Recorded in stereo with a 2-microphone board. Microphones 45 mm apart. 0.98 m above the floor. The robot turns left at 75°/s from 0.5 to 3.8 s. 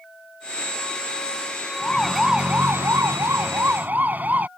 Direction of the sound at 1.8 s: 25° left (ahead or behind).